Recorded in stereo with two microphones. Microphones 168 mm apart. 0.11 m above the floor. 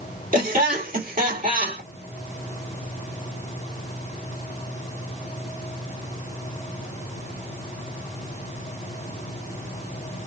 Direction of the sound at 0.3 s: 55° right (ahead or behind).